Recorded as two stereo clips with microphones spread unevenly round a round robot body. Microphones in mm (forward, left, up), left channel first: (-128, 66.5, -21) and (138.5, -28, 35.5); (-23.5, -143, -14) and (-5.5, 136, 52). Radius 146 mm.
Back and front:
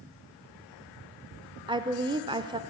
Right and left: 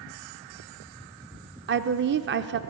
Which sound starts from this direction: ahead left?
A woman speaking, at 1.7 s.